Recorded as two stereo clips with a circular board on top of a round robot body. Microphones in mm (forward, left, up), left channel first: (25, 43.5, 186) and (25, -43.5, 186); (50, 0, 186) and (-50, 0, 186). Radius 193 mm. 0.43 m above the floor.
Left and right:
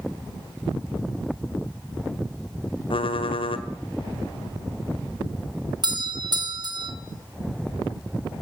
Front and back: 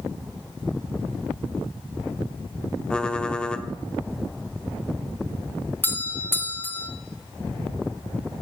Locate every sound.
2.9 s typing on a keyboard: 80° left, 1.6 m
5.8 s a doorbell: 65° right, 2.5 m